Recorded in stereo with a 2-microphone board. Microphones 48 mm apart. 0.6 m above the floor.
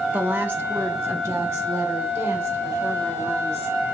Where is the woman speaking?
30° right (ahead or behind), 0.7 m; by 3.9 s 80° right, 3 m.